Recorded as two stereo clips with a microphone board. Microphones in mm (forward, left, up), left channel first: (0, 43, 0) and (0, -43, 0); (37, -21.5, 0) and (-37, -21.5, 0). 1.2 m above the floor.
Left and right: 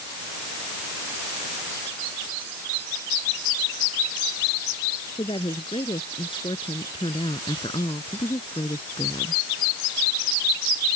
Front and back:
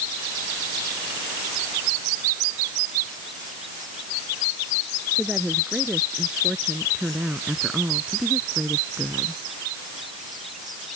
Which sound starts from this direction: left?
A woman speaking, at 5.2 s.